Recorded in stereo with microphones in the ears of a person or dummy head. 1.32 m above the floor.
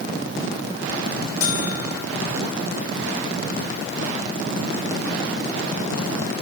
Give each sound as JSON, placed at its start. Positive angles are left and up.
{"t": 1.4, "sound": "a buzzer", "side_deg": 35, "distance_m": 1.5}